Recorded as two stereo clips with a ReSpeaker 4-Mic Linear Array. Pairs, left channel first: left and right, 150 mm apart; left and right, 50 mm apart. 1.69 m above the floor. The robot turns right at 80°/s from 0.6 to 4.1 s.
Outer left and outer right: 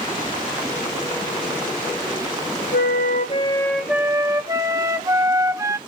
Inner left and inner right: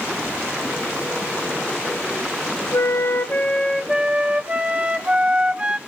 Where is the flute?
90° left, 1.2 m; by 5.8 s 160° right, 1.2 m.